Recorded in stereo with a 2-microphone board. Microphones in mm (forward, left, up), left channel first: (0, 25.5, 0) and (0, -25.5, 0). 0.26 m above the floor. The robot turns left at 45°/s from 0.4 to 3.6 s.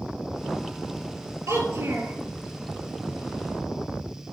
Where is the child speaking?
95° right, 3 m; by 2.1 s 125° right, 3 m.